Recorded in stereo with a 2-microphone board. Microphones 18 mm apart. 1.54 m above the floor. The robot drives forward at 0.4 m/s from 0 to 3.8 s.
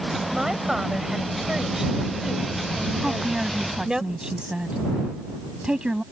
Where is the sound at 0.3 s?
30° right (ahead or behind); by 4.0 s 35° right (ahead or behind).